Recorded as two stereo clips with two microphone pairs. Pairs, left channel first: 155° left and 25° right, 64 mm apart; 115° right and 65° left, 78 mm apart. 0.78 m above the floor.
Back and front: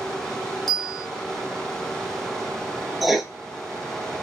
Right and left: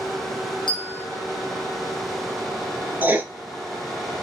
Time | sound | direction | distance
0.7 | a bell | 115° right | 0.8 m
3.0 | writing | 50° left | 0.5 m